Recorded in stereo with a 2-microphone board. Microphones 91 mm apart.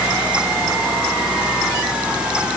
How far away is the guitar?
No guitar in this recording.